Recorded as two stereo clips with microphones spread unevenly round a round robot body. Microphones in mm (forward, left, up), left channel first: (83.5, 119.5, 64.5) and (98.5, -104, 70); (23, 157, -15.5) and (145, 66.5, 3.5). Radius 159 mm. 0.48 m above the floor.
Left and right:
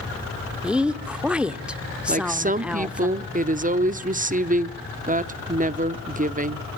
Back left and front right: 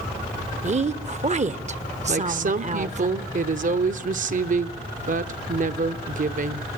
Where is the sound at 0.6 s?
Straight ahead, 1.2 m.